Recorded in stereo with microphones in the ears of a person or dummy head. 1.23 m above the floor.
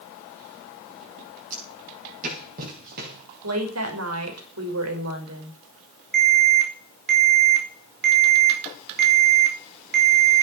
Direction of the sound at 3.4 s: 85° right.